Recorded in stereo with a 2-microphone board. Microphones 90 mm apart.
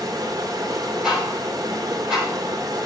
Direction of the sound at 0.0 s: 40° right (ahead or behind).